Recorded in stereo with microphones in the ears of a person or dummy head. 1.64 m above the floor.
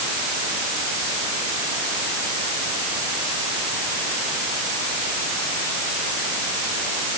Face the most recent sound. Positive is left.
No sound to turn to.